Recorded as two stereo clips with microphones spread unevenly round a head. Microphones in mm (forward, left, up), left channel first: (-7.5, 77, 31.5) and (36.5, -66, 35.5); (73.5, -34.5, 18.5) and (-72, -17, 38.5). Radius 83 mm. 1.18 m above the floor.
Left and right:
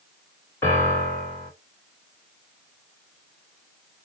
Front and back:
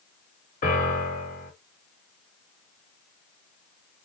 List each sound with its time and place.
0.6 s a piano: 35° left, 2.5 m